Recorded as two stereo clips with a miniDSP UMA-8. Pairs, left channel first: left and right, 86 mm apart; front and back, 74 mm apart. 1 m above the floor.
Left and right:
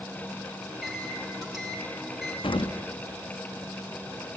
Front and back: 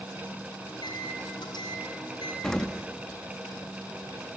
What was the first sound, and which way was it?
A microwave, straight ahead.